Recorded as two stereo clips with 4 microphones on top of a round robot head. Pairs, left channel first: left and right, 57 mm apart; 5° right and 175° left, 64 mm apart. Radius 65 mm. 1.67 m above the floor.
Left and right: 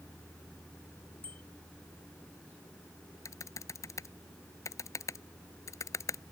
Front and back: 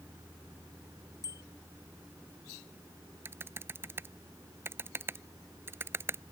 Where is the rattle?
I don't hear a rattle.